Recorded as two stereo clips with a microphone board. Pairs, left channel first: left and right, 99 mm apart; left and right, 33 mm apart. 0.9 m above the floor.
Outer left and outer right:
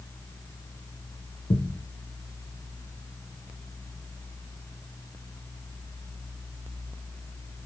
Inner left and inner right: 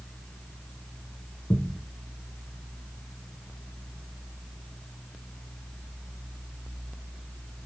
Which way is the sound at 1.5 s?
80° left.